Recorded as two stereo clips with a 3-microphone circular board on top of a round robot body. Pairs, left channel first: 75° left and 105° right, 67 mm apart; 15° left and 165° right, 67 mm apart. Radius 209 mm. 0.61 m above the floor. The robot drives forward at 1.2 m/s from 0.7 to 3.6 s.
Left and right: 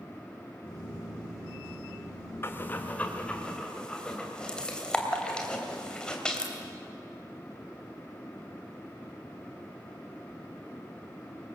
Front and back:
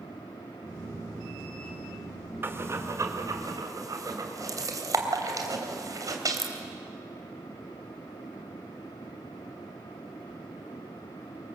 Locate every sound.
2.4 s breathing: 135° left, 1.8 m; by 6.5 s 155° left, 3 m